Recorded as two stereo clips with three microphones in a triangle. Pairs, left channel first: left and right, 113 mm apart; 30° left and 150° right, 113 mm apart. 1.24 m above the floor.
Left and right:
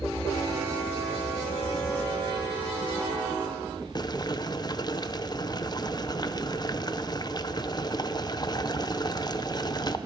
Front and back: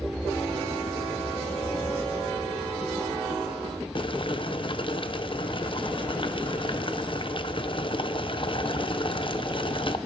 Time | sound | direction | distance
4.0 | boiling | 50° left | 0.5 m